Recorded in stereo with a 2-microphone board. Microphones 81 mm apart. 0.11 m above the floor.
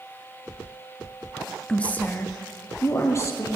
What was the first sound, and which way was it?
A woman speaking, 15° left (ahead or behind).